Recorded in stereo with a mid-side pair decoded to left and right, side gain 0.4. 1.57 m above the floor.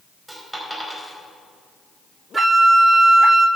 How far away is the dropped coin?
About 4.5 m.